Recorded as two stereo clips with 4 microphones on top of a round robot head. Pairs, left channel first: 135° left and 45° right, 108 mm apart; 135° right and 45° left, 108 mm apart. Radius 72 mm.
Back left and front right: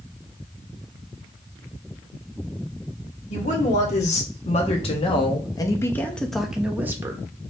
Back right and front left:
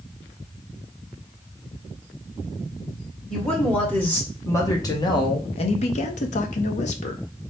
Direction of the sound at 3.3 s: 145° left.